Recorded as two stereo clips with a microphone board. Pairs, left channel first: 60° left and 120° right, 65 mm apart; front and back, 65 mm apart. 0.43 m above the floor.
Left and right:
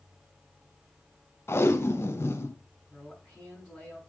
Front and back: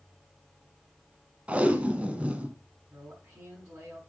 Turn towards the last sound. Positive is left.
turn(degrees=135)